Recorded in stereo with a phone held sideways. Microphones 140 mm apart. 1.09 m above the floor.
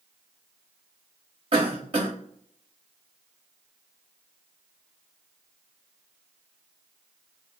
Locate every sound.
1.5 s a cough: 40° right (ahead or behind), 0.6 m